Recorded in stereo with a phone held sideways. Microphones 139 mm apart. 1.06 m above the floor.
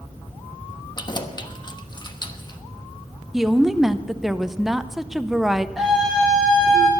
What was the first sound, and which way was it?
Keys jangling, 30° left (ahead or behind).